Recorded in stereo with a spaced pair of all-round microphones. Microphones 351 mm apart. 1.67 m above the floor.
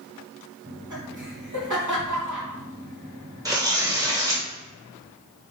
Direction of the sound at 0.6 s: 55° right (ahead or behind).